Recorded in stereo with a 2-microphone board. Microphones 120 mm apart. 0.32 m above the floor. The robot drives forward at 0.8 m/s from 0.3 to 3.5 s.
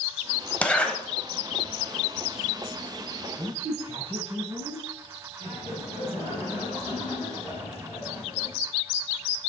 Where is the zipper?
10° left (ahead or behind), 1.0 m.